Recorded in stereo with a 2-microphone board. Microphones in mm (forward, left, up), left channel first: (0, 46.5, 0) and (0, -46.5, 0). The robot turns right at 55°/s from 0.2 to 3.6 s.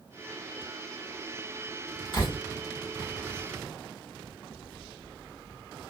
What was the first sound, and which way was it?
A door slam, 60° left (ahead or behind).